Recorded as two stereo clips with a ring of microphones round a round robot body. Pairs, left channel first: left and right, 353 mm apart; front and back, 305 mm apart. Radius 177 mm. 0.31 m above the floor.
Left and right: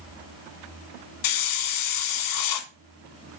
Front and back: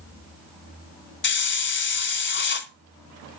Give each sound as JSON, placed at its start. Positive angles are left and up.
{"t": 1.2, "sound": "a hiss", "azimuth_deg": 55, "distance_m": 1.3}